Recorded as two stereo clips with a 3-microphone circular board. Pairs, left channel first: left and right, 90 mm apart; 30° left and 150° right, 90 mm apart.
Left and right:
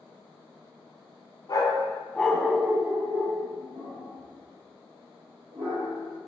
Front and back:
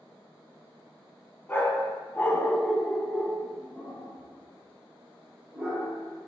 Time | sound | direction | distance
1.5 | a dog barking | 85° left | 0.6 m